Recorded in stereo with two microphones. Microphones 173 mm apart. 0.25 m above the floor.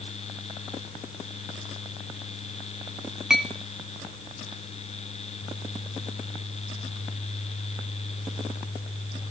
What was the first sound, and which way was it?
A clink, 5° right (ahead or behind).